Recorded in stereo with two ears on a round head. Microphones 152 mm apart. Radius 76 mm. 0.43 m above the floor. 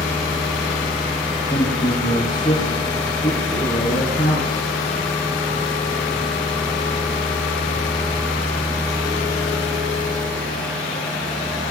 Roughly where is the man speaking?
Left.